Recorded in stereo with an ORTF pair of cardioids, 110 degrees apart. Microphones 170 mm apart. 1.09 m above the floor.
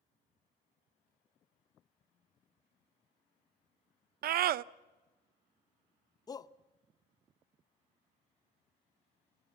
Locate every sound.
4.2 s a scream: 65° right, 0.7 m
6.3 s a shout: 20° left, 0.8 m